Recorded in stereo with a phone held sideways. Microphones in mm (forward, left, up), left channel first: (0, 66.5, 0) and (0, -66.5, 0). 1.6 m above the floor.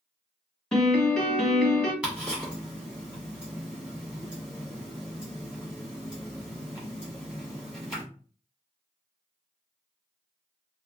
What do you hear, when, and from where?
0.7 s a piano: 5° left (ahead or behind), 1.0 m
2.0 s ticking: 5° right (ahead or behind), 1.3 m